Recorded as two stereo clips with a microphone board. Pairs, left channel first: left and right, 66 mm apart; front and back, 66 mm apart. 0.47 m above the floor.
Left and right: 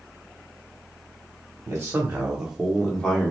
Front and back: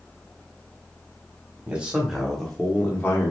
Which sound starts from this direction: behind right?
A man speaking, at 1.7 s.